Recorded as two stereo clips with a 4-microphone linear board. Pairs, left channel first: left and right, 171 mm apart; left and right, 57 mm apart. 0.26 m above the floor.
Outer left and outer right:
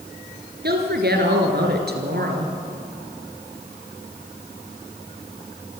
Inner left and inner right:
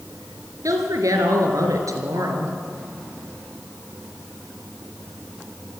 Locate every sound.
0.6 s a woman speaking: 75° right (ahead or behind), 3.5 m